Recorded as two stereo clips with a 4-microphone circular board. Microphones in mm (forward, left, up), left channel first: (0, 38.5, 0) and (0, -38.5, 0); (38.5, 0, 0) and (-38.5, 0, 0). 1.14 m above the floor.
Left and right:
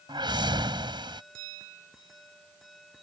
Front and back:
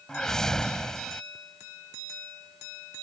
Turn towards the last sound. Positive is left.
turn(degrees=-85)